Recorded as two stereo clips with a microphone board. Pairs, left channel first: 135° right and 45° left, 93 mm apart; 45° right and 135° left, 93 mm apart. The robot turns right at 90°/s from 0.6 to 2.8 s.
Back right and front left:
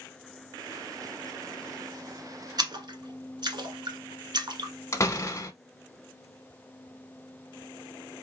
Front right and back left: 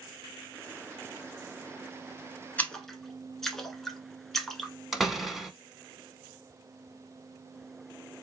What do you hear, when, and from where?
2.6 s a splash: 20° left, 1.0 m; by 4.7 s 40° left, 1.0 m
4.9 s a door slam: 140° right, 0.8 m